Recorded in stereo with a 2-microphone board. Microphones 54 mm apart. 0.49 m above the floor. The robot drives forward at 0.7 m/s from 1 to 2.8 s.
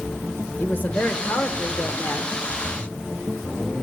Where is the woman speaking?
30° left (ahead or behind), 1.4 m; by 2.4 s 45° left (ahead or behind), 1.0 m.